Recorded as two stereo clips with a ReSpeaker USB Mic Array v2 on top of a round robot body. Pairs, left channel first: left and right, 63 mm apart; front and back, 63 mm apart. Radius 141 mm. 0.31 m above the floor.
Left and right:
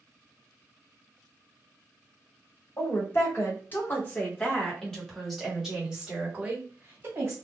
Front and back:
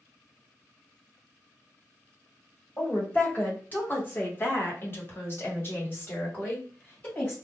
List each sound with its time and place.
2.8 s a woman speaking: 60° left, 2.0 m; by 7.3 s 50° right, 1.8 m